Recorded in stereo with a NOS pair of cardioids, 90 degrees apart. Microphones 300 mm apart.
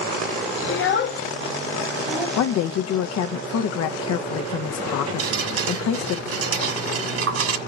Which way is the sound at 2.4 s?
60° left.